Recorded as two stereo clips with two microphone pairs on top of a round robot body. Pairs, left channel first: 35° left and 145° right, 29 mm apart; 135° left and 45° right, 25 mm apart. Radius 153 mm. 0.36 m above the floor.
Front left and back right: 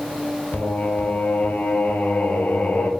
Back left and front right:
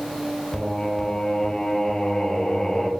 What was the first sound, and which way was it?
Singing, 60° left.